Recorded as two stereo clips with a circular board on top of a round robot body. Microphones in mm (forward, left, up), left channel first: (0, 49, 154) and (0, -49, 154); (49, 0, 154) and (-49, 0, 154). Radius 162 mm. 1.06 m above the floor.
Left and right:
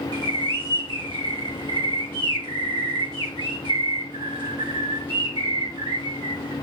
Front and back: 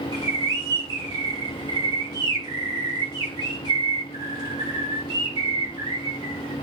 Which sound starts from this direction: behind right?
A bird, at 0.1 s.